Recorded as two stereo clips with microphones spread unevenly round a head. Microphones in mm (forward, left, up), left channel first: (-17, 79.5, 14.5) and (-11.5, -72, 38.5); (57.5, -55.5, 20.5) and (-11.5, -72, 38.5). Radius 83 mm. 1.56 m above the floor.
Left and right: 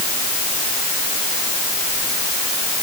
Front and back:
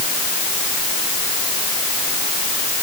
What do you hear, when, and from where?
Only background noise.